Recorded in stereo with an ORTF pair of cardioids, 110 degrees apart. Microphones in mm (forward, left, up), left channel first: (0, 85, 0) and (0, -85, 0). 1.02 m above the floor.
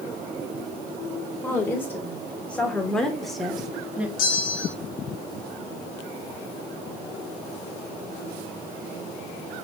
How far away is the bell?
About 2.5 m.